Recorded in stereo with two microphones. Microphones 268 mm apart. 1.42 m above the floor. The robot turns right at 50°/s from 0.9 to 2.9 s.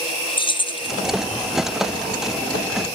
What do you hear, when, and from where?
0.4 s keys jangling: 20° left (ahead or behind), 0.6 m